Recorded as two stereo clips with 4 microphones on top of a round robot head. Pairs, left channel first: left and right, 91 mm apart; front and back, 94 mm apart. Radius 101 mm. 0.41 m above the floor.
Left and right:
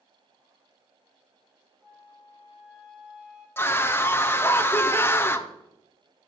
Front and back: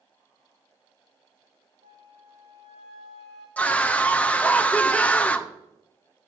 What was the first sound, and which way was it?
A flute, 170° right.